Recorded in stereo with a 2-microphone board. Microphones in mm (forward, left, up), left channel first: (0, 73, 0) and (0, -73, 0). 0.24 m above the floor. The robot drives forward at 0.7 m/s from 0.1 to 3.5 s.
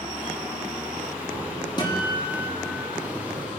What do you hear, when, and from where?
1.8 s a guitar: 30° left (ahead or behind), 5.5 m; by 2.9 s 35° left (ahead or behind), 4.5 m